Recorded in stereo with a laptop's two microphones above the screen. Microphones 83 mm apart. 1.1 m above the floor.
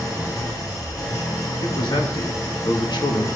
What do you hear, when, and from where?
0.0 s an engine running: 50° left (ahead or behind), 3.5 m
1.6 s a man speaking: 65° left (ahead or behind), 1.7 m